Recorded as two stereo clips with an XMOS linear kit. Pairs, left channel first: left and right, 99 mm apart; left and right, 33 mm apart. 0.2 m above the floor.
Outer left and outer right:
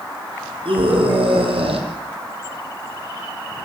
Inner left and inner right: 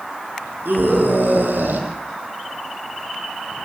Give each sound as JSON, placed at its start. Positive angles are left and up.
{"t": 0.7, "sound": "a scream", "side_deg": -70, "distance_m": 8.5}